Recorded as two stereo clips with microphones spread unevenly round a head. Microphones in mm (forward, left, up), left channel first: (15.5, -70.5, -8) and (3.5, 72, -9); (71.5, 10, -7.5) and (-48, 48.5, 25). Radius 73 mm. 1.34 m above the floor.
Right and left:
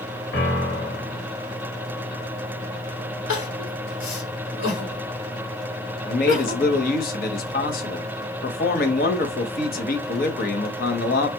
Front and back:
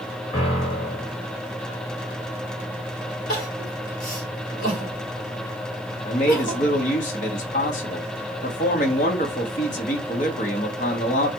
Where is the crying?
80° right, 2.5 m.